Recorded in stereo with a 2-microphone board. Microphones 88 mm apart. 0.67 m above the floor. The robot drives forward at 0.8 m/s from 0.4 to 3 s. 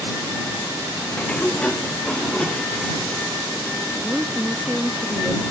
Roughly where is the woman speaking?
Centre.